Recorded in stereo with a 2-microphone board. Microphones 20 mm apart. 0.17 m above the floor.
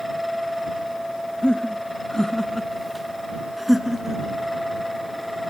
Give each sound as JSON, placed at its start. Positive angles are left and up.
{"t": 1.4, "sound": "laughter", "side_deg": 50}